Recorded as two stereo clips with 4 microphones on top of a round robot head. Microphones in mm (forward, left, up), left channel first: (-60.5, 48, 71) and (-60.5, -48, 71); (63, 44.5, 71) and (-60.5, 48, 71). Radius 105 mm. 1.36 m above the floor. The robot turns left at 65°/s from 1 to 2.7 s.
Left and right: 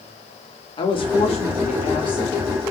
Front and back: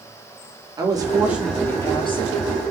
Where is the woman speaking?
120° left, 3 m; by 2.6 s 15° left, 3 m.